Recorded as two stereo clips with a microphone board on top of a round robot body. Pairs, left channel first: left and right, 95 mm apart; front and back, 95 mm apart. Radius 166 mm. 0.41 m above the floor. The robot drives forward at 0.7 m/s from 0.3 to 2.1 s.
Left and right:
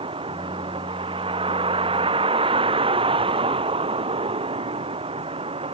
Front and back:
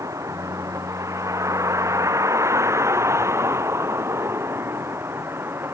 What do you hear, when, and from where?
0.0 s a vehicle: 120° right; by 5.8 s 110° right